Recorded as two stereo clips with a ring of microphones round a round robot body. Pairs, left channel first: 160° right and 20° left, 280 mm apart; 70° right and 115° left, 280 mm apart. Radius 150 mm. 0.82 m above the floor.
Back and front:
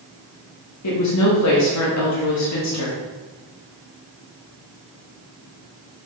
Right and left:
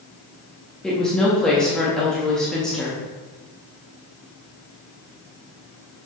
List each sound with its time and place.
0.8 s a woman speaking: 155° right, 1.5 m